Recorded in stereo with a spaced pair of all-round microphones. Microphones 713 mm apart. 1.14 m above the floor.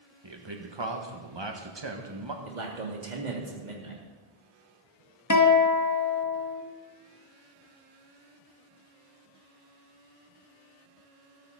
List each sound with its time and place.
0.2 s a man speaking: 35° right (ahead or behind), 1.6 m
2.5 s a man speaking: 80° right, 2.5 m
5.3 s a guitar: 25° left (ahead or behind), 1.1 m